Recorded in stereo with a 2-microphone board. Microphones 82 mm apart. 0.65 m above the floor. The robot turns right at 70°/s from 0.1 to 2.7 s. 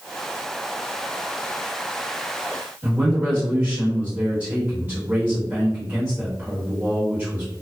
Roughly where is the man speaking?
Centre.